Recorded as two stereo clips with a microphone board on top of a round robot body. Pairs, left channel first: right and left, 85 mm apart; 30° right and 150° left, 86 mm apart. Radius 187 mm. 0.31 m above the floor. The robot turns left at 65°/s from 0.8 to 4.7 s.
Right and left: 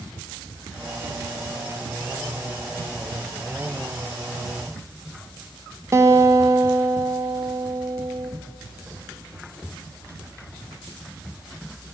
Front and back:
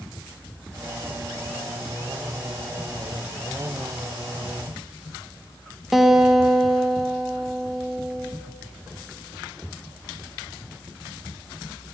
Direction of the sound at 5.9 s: 65° left.